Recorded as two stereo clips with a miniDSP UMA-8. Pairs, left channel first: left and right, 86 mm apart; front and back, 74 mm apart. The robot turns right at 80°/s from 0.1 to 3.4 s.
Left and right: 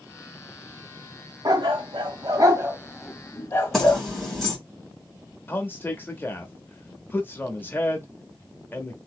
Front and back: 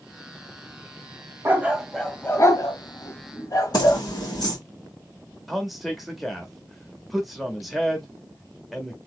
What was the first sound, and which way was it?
A dog barking, 125° right.